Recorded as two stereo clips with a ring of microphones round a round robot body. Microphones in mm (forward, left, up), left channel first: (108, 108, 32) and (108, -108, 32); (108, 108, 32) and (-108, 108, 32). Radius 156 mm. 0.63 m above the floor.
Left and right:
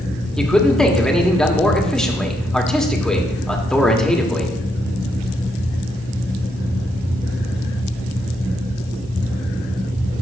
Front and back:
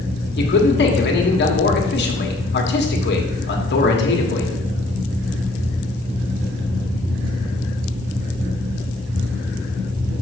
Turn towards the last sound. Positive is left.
turn(degrees=5)